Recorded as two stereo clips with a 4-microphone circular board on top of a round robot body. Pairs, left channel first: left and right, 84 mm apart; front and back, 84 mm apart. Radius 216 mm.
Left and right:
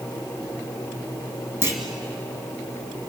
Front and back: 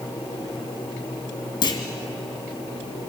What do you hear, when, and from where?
1.6 s a clunk: 30° right, 2 m